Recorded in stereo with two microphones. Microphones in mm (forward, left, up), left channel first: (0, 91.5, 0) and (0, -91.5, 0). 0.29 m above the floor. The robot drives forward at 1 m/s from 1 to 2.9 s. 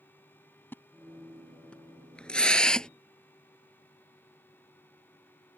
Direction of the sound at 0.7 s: 10° left (ahead or behind).